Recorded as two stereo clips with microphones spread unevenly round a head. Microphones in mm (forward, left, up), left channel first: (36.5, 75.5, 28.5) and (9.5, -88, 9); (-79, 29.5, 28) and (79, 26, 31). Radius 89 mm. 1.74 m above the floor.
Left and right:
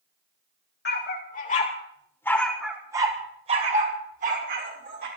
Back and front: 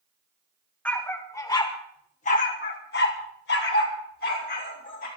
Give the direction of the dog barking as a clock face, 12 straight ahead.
9 o'clock.